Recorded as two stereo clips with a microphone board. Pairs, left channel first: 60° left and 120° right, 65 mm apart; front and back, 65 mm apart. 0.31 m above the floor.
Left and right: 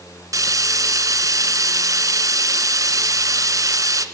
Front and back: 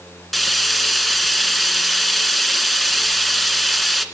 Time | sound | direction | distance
0.3 | frying | 85° right | 2 m